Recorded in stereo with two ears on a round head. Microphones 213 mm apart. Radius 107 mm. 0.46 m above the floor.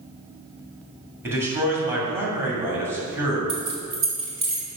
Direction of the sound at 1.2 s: 10° right (ahead or behind).